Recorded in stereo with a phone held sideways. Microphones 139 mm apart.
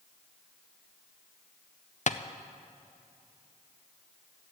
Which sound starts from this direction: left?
Tapping, at 2.1 s.